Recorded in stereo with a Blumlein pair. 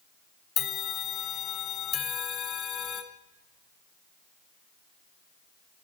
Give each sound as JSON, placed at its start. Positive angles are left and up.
{"t": 0.6, "sound": "a bell", "azimuth_deg": 30, "distance_m": 0.5}